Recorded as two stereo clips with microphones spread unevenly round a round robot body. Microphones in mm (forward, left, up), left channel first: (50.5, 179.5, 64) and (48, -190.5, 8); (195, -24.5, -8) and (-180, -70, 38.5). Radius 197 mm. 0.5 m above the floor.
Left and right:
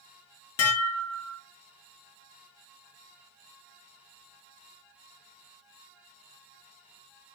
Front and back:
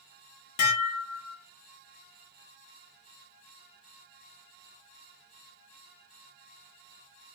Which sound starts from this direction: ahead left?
Dishes clattering, at 0.6 s.